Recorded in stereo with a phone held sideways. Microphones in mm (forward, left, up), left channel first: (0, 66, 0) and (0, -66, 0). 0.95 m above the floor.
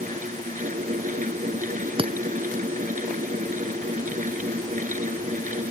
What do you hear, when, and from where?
0.0 s a fan: 75° right (ahead or behind)
2.0 s breaking glass: 40° right (ahead or behind)